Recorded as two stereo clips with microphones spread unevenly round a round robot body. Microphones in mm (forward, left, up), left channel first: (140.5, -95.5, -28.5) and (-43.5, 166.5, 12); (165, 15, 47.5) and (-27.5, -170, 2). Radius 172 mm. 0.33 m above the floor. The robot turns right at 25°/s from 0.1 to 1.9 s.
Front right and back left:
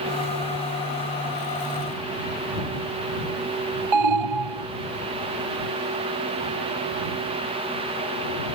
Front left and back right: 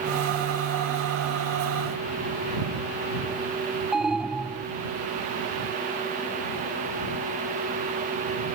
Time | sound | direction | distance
3.9 | an alarm | 135° left | ?